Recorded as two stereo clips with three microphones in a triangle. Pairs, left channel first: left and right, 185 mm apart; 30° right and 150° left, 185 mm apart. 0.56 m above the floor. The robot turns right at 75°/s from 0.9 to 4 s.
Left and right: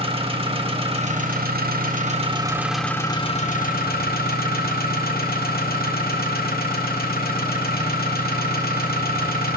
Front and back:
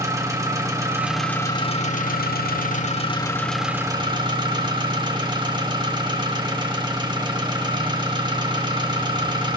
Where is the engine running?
140° right, 1.5 m; by 9.6 s 90° left, 1.5 m.